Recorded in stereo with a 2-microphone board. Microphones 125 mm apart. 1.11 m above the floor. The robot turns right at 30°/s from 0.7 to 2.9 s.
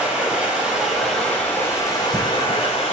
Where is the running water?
10° right, 5.5 m; by 2.9 s 55° left, 5.5 m.